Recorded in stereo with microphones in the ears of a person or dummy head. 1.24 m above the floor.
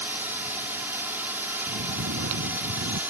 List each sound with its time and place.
0.0 s a drone: 10° right (ahead or behind)
1.7 s snoring: 70° right (ahead or behind)